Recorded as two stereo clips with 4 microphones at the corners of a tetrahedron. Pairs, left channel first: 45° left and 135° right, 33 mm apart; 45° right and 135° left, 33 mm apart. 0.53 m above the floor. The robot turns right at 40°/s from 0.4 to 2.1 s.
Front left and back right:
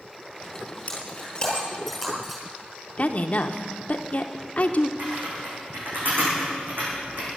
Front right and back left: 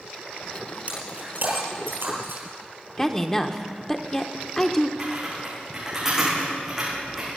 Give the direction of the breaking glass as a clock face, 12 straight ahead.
9 o'clock.